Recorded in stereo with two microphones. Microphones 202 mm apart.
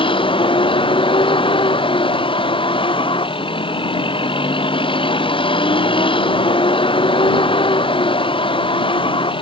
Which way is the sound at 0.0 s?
25° left (ahead or behind).